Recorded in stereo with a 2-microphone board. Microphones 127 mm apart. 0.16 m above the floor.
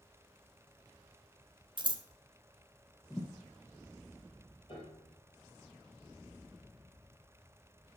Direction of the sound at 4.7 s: 40° left (ahead or behind).